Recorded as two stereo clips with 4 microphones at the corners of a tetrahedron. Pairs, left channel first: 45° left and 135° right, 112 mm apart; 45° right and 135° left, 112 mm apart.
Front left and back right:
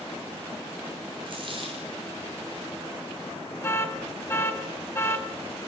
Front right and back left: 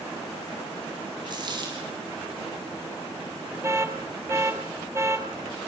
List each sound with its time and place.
1.3 s a dropped coin: 175° right, 6.5 m
3.6 s an alarm: 90° left, 2.5 m